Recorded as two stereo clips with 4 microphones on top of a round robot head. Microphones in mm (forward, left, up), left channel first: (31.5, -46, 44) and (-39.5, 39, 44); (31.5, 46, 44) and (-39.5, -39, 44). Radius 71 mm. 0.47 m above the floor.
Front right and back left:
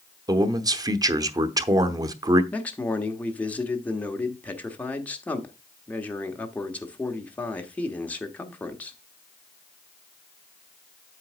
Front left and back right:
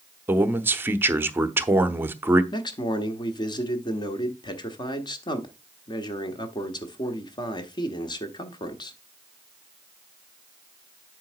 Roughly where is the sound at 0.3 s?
Behind.